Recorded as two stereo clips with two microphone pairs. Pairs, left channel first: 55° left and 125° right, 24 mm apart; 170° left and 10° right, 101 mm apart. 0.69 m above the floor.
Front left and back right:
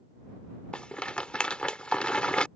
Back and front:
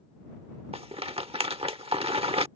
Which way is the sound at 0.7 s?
10° left.